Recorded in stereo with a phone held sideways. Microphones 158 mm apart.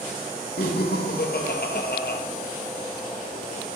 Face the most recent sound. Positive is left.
turn(degrees=85)